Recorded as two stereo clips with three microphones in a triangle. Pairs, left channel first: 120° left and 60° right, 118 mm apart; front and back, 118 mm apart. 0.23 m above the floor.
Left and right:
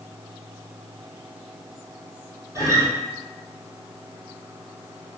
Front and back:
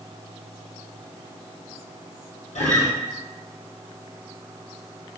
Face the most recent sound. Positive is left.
turn(degrees=5)